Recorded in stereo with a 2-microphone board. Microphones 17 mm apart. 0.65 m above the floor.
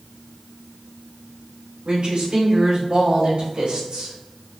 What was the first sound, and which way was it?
A woman speaking, 55° right (ahead or behind).